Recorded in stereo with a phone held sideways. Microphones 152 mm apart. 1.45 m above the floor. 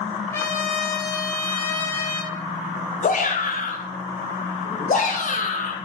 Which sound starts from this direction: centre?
A trumpet, at 0.3 s.